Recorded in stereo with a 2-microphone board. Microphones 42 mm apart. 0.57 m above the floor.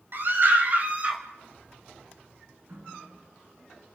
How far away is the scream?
About 4 m.